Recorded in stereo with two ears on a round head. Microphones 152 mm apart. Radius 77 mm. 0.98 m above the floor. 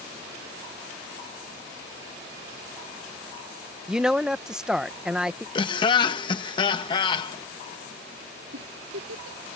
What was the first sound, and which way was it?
A woman speaking, 5° right (ahead or behind).